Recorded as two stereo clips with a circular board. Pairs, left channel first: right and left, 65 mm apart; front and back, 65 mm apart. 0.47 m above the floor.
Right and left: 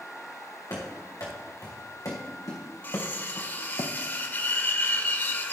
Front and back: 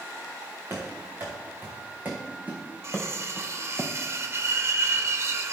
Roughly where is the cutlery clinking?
Behind right.